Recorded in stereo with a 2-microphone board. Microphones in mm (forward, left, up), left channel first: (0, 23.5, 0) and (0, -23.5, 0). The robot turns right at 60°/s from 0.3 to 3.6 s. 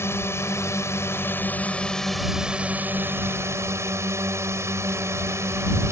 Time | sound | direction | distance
0.0 | a drone | 65° left | ?